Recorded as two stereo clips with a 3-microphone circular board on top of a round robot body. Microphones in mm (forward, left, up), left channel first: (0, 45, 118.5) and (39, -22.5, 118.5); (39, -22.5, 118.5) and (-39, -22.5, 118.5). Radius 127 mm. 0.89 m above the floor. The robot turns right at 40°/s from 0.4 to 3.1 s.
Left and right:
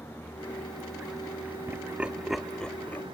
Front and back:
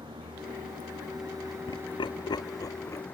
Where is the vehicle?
175° right; by 3.1 s 65° right.